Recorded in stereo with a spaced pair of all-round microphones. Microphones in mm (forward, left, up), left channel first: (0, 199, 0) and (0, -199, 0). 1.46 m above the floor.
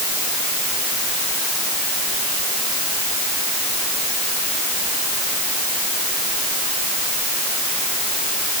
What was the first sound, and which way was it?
Only background noise.